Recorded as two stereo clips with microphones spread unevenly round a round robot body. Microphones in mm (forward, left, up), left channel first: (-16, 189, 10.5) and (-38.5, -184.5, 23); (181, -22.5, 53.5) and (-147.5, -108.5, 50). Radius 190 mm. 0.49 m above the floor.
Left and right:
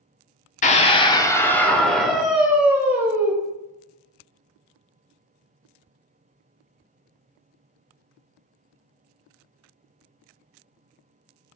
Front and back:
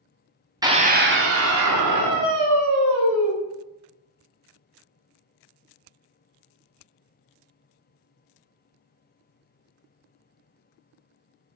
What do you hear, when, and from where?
0.6 s a scream: 130° left, 0.8 m; by 3.3 s straight behind, 2.5 m